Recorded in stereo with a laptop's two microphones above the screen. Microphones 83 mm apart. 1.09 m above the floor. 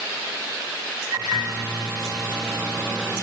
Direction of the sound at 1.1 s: 15° right (ahead or behind).